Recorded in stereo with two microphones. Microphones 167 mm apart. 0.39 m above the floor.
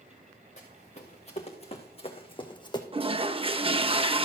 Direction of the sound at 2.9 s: 35° right (ahead or behind).